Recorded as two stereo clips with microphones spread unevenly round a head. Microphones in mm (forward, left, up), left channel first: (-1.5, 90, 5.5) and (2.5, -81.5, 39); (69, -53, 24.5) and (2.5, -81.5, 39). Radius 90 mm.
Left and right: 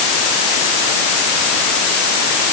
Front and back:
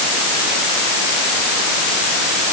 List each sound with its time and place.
Only background noise.